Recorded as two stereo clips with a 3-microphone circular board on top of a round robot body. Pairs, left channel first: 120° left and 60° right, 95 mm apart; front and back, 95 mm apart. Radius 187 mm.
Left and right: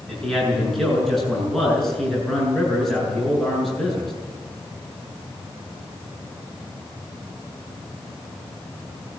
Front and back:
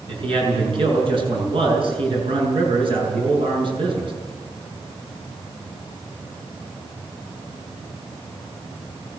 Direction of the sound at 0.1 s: 155° right.